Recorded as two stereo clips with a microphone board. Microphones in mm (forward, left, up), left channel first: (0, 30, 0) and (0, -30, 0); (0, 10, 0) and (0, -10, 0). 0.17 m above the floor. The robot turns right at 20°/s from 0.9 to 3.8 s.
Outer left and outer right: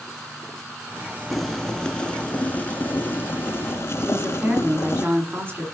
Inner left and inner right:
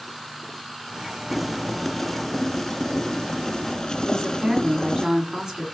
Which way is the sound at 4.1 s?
35° right (ahead or behind).